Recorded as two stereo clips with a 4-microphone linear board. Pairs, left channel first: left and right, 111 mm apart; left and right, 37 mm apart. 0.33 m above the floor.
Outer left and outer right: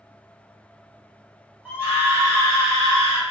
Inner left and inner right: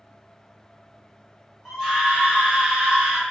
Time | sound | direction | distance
1.6 | a scream | 15° right (ahead or behind) | 1.0 m